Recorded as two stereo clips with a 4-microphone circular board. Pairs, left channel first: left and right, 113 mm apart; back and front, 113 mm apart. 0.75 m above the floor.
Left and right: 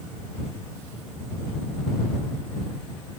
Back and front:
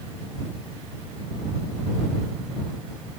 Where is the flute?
No flute in this recording.